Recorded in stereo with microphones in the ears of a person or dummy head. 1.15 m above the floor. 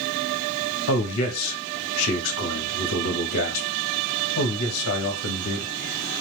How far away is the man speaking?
About 1.1 m.